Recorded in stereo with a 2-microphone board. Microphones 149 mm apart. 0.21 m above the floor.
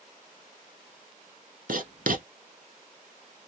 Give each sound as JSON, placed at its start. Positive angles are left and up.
{"t": 1.7, "sound": "writing", "side_deg": -70, "distance_m": 0.8}